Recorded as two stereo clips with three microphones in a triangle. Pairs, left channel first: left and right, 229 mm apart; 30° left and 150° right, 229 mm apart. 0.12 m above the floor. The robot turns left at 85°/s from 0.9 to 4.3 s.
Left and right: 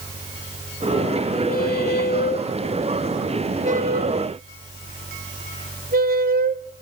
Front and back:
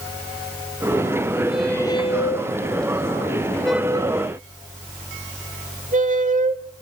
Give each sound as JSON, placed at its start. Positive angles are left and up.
{"t": 1.5, "sound": "a squeak", "azimuth_deg": 130, "distance_m": 0.6}